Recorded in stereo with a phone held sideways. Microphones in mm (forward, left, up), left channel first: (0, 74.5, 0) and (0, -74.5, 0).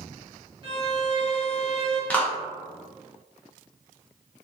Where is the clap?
10° left (ahead or behind), 0.6 m.